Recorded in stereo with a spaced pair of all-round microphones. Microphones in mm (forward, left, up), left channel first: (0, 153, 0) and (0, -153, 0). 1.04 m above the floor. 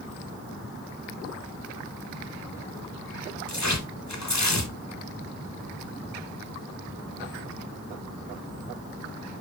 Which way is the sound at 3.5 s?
65° left (ahead or behind).